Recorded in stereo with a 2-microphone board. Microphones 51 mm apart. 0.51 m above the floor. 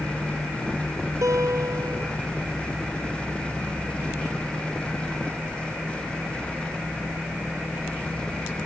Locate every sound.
1.2 s a guitar: 80° right